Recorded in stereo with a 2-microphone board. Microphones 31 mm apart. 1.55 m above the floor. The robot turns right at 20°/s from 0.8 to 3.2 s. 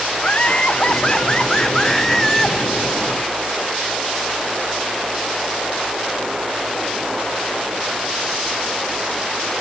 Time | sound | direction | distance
0.2 | laughter | 140° left | 1.2 m